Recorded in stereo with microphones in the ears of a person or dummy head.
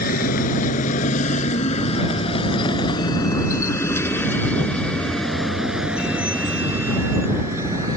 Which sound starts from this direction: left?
A vehicle, at 0.0 s.